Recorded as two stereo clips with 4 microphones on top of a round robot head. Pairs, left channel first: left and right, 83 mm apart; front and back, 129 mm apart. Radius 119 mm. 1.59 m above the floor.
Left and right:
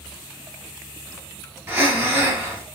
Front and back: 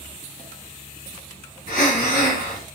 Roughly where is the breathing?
Ahead right.